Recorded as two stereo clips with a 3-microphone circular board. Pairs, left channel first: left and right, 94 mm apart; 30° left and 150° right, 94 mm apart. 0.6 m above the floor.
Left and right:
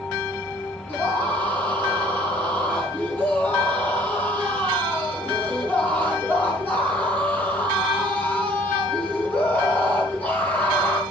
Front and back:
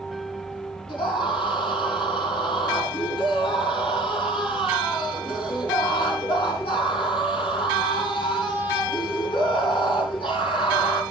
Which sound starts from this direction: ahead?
A scream, at 0.9 s.